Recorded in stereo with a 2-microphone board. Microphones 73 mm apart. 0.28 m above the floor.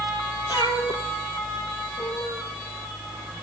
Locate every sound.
0.5 s a cat meowing: 85° left, 2.5 m; by 2.5 s 60° left (ahead or behind), 2 m